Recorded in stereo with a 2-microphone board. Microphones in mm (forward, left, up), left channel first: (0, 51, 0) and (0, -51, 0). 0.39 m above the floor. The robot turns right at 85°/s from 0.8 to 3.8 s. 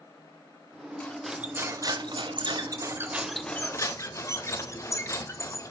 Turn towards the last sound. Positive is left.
turn(degrees=40)